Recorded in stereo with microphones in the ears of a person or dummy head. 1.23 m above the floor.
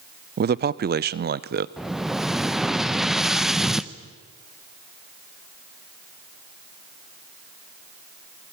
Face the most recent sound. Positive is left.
turn(degrees=-5)  # may be behind; listen again after turning